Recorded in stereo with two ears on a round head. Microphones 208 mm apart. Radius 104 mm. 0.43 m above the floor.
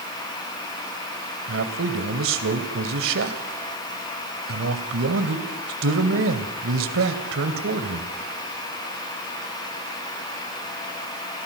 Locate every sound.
1.5 s a man speaking: 60° right (ahead or behind), 2.5 m